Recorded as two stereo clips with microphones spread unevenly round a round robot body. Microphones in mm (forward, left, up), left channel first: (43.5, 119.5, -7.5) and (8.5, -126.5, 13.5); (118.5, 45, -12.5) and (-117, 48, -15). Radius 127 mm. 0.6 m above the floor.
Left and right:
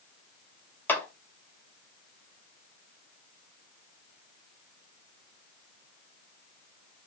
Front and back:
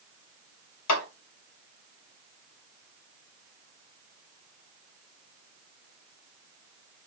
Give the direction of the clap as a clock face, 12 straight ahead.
12 o'clock.